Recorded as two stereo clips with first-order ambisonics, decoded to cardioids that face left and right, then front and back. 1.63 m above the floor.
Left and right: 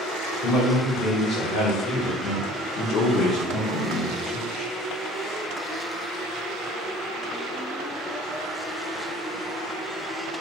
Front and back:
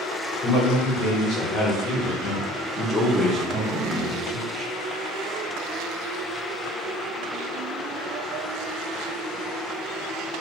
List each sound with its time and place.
0.4 s a man speaking: 25° left, 1.8 m; by 4.7 s 165° left, 1.0 m